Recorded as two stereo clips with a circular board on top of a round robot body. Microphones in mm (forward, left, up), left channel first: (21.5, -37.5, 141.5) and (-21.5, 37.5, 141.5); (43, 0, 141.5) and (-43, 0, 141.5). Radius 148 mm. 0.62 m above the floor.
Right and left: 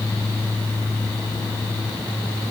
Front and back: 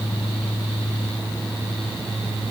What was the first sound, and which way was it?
Only background noise.